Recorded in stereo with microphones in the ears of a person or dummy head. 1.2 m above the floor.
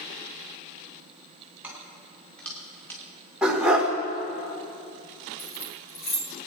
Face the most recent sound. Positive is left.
turn(degrees=80)